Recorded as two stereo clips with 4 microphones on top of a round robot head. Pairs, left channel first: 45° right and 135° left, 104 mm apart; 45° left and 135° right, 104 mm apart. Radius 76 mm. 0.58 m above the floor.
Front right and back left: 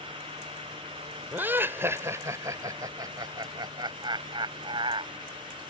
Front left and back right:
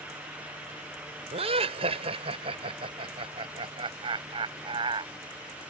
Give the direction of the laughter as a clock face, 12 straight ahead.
5 o'clock.